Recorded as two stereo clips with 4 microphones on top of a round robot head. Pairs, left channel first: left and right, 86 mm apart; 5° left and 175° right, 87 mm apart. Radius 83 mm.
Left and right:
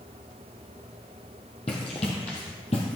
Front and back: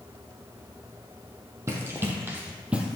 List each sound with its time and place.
1.7 s running footsteps: 130° left, 1.9 m; by 3.0 s 105° left, 1.6 m